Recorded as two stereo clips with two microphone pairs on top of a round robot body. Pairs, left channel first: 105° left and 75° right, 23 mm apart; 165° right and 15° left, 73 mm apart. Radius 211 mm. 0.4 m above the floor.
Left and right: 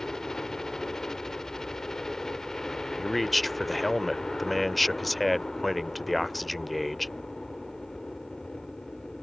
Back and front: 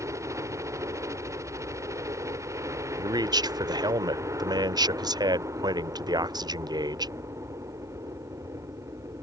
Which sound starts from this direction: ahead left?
A helicopter, at 0.0 s.